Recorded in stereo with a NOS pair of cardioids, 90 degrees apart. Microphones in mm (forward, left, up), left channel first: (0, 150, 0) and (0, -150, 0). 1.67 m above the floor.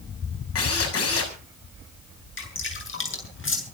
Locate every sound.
0.6 s a drill: 50° left, 6.5 m
2.4 s dripping: 40° left, 7.5 m